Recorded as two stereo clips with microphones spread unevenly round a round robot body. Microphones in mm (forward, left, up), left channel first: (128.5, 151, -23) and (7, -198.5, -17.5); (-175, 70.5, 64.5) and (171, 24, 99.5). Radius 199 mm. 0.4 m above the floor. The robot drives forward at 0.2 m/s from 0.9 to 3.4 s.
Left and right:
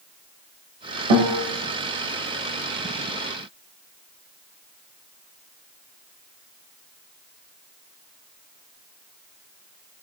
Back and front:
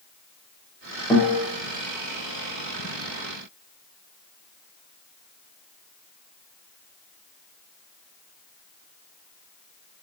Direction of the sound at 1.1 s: 105° right.